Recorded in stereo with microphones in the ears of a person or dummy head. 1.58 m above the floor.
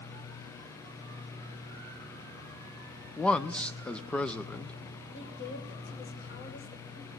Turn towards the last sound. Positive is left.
turn(degrees=60)  # may be behind; listen again after turning